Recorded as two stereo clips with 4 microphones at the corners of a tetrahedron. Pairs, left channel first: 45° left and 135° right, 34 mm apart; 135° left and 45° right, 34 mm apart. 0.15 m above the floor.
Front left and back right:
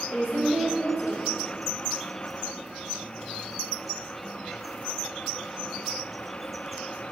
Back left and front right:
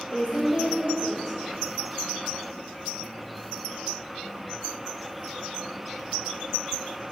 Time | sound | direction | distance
0.1 | a woman speaking | straight behind | 3 m